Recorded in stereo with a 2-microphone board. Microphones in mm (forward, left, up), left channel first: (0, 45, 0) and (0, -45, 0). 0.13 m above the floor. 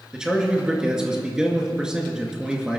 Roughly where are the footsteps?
No footsteps in this recording.